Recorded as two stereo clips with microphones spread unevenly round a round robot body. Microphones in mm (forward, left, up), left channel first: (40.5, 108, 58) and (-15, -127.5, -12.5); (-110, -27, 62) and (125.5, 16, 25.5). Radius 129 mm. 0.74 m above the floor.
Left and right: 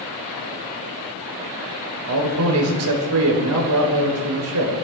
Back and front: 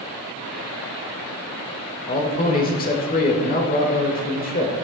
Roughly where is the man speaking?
Behind right.